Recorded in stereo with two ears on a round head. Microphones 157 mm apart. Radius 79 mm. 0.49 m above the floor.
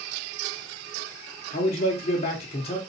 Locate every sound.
1.5 s a man speaking: 35° left (ahead or behind), 0.9 m